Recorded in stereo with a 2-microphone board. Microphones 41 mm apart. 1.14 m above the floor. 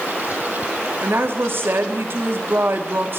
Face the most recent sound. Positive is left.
turn(degrees=-60)  # may be behind; listen again after turning